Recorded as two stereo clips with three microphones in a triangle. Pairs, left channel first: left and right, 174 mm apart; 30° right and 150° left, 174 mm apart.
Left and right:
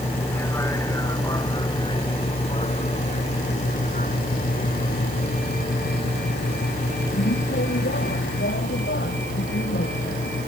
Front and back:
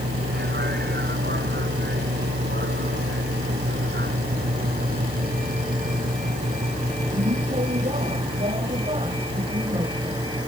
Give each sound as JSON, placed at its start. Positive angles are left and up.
{"t": 0.0, "sound": "a vehicle", "azimuth_deg": 170}